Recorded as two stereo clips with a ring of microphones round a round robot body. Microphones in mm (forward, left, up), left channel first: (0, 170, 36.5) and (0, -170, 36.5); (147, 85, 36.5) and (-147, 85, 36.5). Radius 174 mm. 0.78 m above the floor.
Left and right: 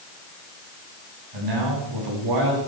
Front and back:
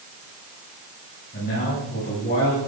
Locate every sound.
1.3 s a man speaking: 65° right, 7.5 m